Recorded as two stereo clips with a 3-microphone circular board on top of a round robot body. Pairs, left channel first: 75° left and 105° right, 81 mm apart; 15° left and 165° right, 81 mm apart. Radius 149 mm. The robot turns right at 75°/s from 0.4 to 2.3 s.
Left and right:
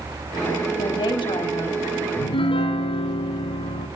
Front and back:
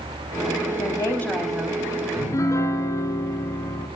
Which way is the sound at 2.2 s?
60° left.